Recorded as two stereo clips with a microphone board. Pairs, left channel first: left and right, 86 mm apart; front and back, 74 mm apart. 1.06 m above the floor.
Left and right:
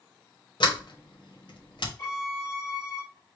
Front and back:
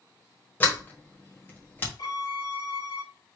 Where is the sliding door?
65° left, 1.3 m.